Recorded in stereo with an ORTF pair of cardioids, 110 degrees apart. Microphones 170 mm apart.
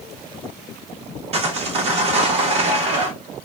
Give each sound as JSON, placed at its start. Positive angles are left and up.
{"t": 1.3, "sound": "sawing", "azimuth_deg": -40, "distance_m": 0.9}